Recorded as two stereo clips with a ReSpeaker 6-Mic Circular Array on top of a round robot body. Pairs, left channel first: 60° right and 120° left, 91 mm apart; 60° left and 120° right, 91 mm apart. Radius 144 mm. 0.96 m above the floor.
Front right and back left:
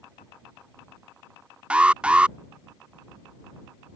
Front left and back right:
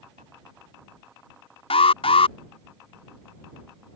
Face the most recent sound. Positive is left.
turn(degrees=40)